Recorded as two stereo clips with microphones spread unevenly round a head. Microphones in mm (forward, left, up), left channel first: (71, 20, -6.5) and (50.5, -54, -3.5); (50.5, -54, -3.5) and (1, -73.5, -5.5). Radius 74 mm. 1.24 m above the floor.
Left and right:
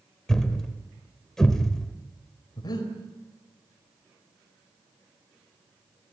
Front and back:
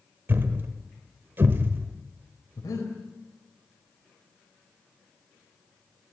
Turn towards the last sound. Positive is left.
turn(degrees=45)